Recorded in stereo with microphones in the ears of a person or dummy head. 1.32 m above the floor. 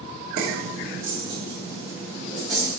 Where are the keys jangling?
50° right (ahead or behind), 2.5 m; by 2.7 s 5° right (ahead or behind), 4.5 m.